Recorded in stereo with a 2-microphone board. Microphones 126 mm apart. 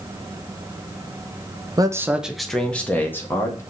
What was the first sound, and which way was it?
A man speaking, 30° right (ahead or behind).